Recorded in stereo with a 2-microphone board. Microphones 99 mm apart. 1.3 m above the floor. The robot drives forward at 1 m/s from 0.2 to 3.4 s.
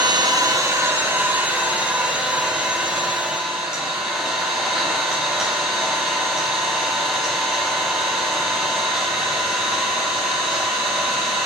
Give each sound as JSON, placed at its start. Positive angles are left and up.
{"t": 0.0, "sound": "an engine running", "side_deg": -45, "distance_m": 0.9}